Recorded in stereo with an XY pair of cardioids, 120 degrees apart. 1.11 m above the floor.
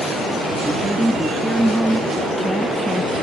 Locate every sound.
0.6 s a woman speaking: 5° right